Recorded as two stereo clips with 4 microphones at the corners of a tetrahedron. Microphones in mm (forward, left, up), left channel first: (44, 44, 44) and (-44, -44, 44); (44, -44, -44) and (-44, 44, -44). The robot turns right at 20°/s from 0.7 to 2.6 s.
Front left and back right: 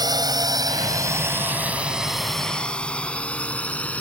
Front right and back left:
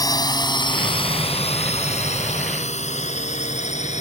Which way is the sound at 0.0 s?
90° right.